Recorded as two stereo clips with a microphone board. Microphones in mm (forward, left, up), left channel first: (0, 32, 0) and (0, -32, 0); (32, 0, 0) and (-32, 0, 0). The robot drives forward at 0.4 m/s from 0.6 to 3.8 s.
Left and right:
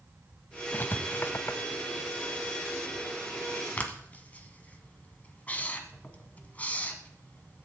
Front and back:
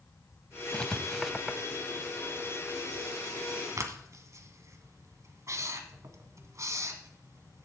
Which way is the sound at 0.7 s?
60° left.